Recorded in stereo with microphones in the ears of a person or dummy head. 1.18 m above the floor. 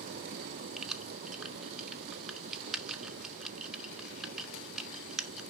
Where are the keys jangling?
5° right (ahead or behind), 0.6 m.